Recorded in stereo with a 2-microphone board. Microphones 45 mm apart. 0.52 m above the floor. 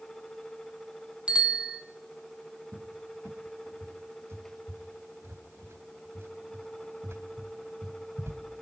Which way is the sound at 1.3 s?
25° right (ahead or behind).